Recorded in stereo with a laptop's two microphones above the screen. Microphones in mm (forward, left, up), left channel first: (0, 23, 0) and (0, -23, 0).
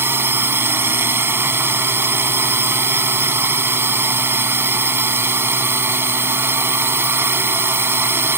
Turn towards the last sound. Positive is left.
turn(degrees=-55)  # may be behind; listen again after turning